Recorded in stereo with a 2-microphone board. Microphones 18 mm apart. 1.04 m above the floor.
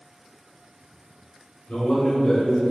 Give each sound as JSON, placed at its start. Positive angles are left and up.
{"t": 1.7, "sound": "a man speaking", "side_deg": 65, "distance_m": 1.3}